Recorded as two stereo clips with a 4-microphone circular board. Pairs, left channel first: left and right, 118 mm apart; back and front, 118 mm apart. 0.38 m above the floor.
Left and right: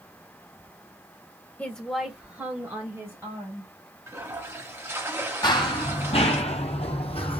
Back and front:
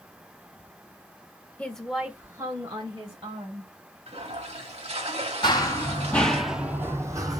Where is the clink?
No clink in this recording.